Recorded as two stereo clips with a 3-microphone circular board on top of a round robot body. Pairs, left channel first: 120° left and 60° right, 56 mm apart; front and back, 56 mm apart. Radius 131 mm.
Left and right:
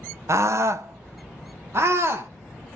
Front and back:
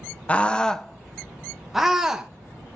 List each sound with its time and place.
0.3 s a scream: 60° right, 0.9 m; by 2.3 s 100° right, 1.7 m